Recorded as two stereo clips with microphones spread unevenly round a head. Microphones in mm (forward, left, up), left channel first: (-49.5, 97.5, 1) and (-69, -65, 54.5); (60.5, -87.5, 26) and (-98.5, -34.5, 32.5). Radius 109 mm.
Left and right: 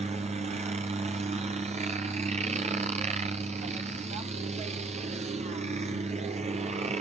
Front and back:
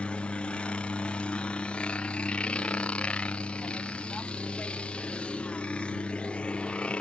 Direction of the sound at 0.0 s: 85° right.